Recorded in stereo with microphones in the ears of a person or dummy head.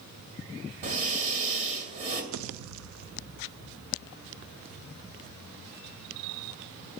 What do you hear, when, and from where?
0.8 s breathing: 40° right (ahead or behind), 2 m
2.3 s a pop: 75° right (ahead or behind), 0.6 m